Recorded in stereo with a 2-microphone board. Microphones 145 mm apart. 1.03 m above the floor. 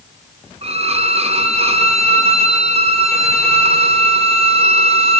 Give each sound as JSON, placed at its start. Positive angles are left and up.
{"t": 0.6, "sound": "a violin", "side_deg": -45, "distance_m": 0.5}